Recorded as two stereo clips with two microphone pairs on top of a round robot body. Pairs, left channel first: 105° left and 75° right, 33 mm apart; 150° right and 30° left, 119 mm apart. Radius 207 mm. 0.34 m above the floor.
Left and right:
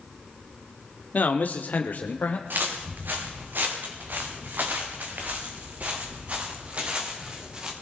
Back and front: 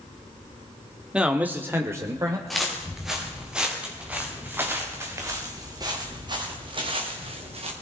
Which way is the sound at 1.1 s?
105° left.